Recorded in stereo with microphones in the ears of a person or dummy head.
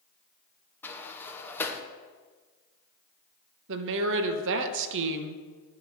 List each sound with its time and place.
0.8 s a sliding door: 10° left (ahead or behind), 0.7 m
3.7 s a woman speaking: 65° right (ahead or behind), 0.8 m